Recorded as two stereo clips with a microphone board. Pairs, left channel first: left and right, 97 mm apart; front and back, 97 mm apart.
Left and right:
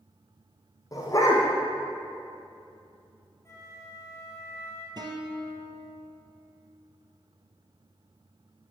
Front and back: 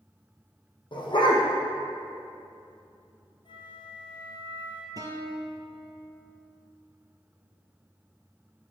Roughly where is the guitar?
Behind right.